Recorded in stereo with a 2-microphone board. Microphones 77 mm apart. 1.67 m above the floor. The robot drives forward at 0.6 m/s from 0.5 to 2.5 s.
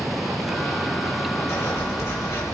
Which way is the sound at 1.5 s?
35° left (ahead or behind).